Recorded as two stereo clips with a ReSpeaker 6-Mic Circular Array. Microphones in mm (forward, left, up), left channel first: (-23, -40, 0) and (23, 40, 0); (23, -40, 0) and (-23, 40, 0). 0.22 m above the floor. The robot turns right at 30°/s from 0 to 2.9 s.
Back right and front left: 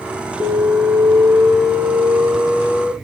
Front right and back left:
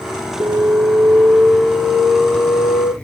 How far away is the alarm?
About 3 m.